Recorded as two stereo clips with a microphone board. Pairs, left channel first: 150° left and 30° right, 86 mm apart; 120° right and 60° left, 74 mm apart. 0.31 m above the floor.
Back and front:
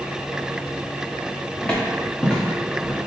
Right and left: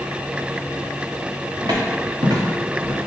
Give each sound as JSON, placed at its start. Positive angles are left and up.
{"t": 1.6, "sound": "footsteps", "azimuth_deg": 75, "distance_m": 1.6}